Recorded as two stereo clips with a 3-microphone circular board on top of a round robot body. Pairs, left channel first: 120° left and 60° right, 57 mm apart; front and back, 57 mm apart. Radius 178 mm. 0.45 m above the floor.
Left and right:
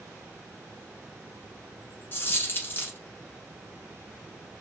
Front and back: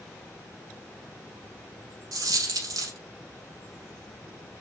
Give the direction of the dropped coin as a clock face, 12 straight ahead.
6 o'clock.